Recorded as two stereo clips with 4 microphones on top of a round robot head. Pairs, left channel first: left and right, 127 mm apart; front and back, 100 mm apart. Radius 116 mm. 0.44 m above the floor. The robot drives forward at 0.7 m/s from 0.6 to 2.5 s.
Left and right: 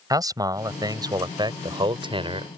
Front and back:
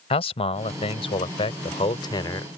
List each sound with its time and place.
0.1 s a man speaking: 30° right; by 2.5 s 50° right